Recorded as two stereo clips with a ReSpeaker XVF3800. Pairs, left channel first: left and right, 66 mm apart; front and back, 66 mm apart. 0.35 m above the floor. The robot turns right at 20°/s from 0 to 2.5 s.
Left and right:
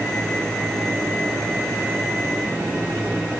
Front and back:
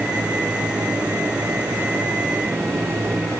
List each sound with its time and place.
Only background noise.